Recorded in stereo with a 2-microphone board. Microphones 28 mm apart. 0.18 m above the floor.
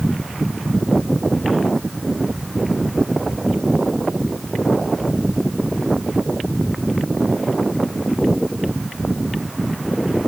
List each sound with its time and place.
Only background noise.